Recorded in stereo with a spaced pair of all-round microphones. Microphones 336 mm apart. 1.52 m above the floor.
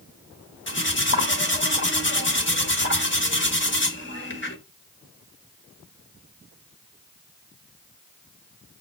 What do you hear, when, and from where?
0.7 s cutlery clinking: 35° left (ahead or behind), 1.5 m